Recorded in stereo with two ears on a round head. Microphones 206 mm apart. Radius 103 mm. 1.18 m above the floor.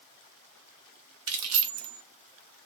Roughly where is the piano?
No piano in this recording.